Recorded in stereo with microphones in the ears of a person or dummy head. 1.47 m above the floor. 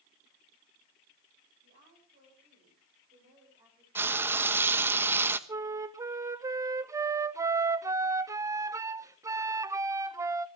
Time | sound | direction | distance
1.6 | a woman speaking | 50° right (ahead or behind) | 7 m
4.0 | frying | 10° right (ahead or behind) | 1.2 m
5.5 | a flute | 15° right (ahead or behind) | 0.7 m